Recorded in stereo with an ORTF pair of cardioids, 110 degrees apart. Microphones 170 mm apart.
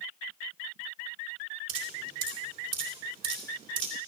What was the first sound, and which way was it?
Dripping, 55° right.